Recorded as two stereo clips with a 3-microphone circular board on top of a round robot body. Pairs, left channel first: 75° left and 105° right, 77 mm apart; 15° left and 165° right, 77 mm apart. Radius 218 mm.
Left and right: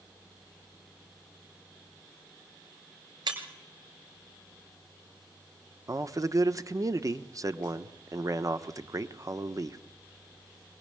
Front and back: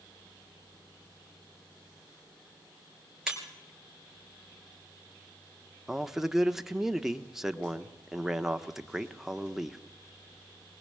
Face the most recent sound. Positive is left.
turn(degrees=-80)